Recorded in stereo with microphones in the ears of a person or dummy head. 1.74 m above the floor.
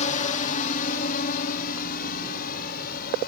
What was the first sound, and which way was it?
A drone, 40° left (ahead or behind).